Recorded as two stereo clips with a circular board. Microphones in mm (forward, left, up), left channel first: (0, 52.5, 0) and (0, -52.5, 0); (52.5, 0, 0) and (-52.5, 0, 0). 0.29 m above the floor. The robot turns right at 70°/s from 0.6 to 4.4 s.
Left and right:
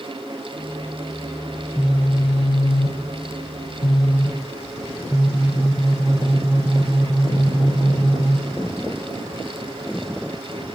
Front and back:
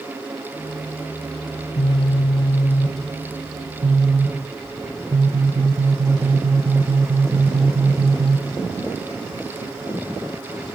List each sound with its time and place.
1.5 s a phone buzzing: 20° right, 3.5 m; by 8.8 s 175° right, 3.5 m